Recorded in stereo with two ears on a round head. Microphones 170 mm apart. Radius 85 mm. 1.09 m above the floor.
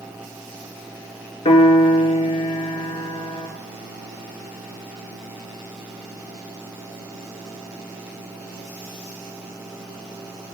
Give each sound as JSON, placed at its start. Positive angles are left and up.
{"t": 1.4, "sound": "a piano", "side_deg": 25, "distance_m": 4.5}